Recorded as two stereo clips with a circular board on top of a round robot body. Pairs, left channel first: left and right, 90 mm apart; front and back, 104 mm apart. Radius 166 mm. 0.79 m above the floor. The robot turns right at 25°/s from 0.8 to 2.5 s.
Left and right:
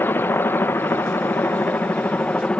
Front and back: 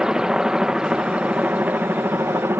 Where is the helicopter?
105° left; by 2.6 s 150° left.